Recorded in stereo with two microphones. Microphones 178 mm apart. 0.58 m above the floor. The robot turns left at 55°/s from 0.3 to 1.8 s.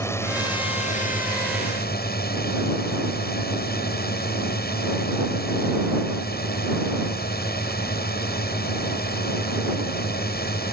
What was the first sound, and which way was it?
A drone, 165° left.